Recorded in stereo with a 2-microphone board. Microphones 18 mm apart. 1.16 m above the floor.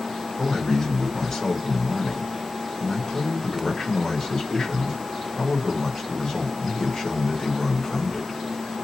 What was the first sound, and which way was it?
A man speaking, 20° left (ahead or behind).